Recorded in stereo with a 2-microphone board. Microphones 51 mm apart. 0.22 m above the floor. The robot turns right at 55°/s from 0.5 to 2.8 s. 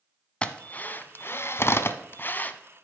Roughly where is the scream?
No scream in this recording.